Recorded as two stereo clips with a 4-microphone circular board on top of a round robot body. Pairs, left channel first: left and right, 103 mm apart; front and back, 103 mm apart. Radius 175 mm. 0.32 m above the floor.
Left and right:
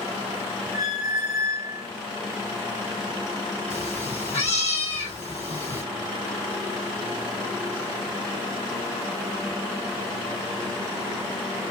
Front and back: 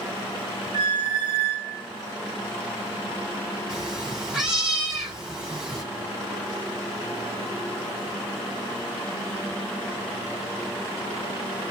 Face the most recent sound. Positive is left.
turn(degrees=95)